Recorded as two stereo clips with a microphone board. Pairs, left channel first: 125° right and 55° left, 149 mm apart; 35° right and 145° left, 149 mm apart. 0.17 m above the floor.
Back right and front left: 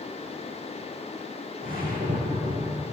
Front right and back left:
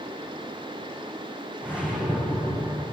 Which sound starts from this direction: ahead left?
A whoosh, at 1.6 s.